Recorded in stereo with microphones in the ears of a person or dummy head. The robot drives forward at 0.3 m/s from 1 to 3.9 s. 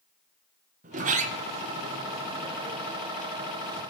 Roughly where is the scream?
I don't hear a scream.